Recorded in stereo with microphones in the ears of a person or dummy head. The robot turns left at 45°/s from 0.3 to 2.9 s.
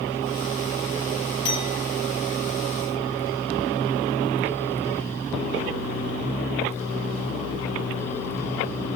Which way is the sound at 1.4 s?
30° left (ahead or behind).